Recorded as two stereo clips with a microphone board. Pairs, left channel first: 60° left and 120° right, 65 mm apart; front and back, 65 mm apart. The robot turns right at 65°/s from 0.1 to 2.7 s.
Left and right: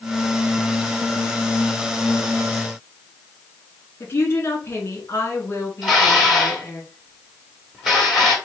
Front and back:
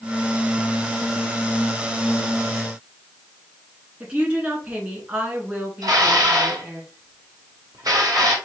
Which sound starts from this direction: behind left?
Dishes clattering, at 5.8 s.